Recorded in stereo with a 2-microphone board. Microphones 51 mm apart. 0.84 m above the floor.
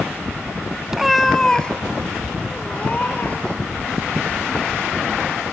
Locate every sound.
0.9 s a cat meowing: 15° right (ahead or behind), 0.6 m; by 3.6 s 30° left (ahead or behind), 2.5 m